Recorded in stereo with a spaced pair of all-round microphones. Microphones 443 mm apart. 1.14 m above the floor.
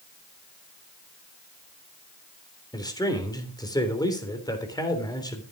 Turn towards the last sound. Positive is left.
turn(degrees=10)  # may be behind; listen again after turning